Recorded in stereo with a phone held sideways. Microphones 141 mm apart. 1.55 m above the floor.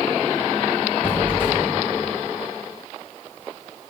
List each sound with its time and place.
1.0 s a squeak: 15° left (ahead or behind), 1.5 m